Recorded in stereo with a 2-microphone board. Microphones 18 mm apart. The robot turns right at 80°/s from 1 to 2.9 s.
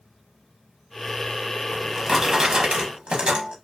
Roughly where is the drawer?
Behind.